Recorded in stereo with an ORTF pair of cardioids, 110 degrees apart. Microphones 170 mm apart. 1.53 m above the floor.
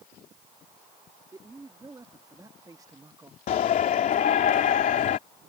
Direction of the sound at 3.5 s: 55° left.